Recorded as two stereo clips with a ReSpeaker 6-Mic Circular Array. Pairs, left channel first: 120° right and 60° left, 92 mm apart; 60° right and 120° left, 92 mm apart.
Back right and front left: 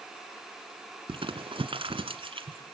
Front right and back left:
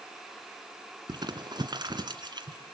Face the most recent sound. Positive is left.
turn(degrees=80)